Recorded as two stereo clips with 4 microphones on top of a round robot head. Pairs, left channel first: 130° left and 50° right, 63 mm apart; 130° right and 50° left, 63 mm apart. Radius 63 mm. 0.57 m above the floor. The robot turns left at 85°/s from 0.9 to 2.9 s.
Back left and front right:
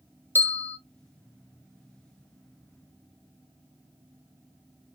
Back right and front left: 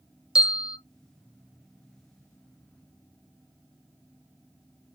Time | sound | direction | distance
0.3 | a bell | 115° left | 0.7 m